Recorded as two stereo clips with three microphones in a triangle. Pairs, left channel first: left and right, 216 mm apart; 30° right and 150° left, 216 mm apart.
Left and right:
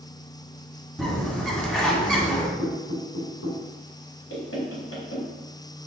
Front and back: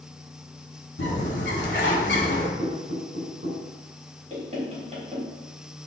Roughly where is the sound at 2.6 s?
Left.